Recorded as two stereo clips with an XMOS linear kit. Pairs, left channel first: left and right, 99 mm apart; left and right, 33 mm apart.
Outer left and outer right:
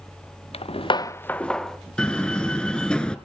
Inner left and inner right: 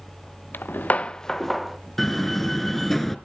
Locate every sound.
0.5 s footsteps: 75° left (ahead or behind), 0.7 m; by 1.8 s centre (ahead or behind), 1.7 m
2.0 s a door slam: 10° left (ahead or behind), 1.3 m